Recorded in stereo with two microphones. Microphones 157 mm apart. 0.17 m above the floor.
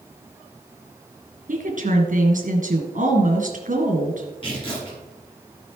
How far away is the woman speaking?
About 2.5 m.